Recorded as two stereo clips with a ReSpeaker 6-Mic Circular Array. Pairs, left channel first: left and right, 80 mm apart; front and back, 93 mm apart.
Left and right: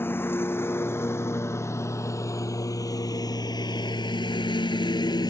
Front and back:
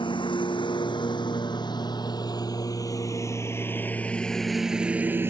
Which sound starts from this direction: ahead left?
A lawn mower, at 0.0 s.